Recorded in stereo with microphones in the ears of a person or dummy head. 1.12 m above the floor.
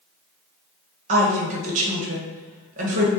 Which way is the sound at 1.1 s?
40° right (ahead or behind).